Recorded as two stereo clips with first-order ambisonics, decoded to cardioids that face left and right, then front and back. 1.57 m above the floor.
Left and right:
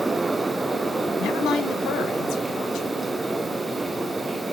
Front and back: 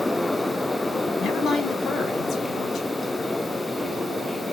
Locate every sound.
1.2 s a woman speaking: 55° left, 0.9 m